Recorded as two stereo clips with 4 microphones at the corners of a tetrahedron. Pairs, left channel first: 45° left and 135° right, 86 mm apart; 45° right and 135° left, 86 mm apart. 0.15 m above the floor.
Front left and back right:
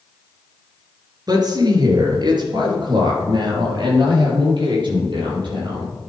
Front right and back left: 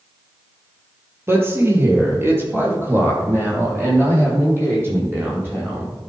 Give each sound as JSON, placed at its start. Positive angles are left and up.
{"t": 1.3, "sound": "a woman speaking", "azimuth_deg": -170, "distance_m": 2.5}